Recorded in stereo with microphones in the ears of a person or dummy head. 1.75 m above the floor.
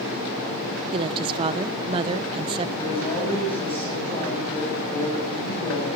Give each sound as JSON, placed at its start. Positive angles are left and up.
{"t": 0.9, "sound": "a woman speaking", "side_deg": -30, "distance_m": 1.0}
{"t": 2.8, "sound": "a man speaking", "side_deg": 25, "distance_m": 9.0}